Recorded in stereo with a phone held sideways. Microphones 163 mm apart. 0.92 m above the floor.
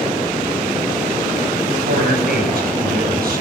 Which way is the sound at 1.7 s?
75° right (ahead or behind).